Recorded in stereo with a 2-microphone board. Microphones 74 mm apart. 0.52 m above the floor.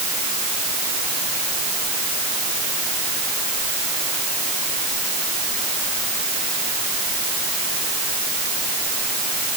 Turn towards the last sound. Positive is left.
No sound to turn to.